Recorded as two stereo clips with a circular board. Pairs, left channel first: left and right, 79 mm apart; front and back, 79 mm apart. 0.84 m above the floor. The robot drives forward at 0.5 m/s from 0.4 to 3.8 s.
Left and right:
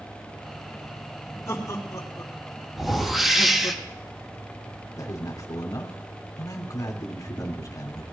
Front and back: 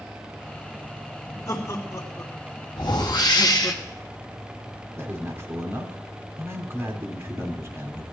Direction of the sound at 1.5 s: 45° left.